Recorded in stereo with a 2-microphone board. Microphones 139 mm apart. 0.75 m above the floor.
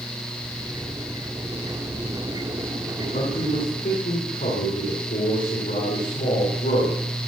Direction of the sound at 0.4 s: 30° right (ahead or behind).